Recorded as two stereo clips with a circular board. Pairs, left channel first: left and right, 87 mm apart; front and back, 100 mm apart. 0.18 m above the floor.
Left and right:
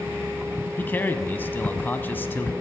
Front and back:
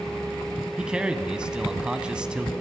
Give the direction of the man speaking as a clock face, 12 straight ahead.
8 o'clock.